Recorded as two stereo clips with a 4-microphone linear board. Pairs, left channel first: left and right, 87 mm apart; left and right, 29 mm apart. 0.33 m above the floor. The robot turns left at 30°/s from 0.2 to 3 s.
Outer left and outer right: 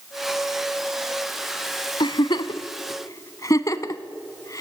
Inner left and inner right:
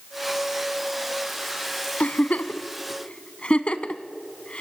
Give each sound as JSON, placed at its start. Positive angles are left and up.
{"t": 2.0, "sound": "a giggle", "side_deg": 70, "distance_m": 0.9}